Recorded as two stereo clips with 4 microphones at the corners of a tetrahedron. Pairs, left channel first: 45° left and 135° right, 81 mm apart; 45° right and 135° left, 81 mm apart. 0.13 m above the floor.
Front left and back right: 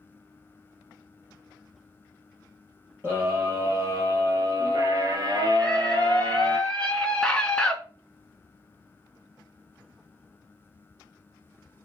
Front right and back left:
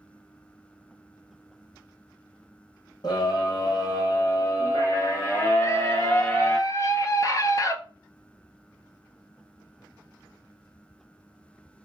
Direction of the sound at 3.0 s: 75° right.